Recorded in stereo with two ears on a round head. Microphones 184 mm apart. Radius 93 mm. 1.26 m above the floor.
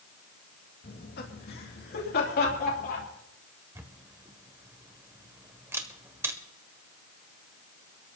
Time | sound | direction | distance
0.8 | laughter | 55° left (ahead or behind) | 2 m
3.8 | a camera shutter | 15° right (ahead or behind) | 1.4 m